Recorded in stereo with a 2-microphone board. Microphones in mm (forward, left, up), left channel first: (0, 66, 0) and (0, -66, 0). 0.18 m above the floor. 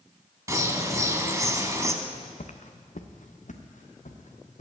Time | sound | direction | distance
0.5 | a bird | 25° right (ahead or behind) | 1.0 m
2.0 | footsteps | 70° left (ahead or behind) | 0.9 m